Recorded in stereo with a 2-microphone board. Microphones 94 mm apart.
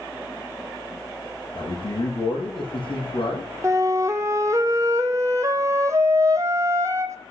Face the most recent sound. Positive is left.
turn(degrees=-30)  # may be behind; listen again after turning